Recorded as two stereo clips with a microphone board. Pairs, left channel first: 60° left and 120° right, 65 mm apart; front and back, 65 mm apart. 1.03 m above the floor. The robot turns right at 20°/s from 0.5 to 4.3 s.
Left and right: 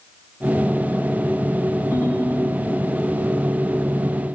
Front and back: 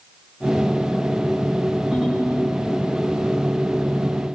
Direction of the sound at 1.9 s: 105° left.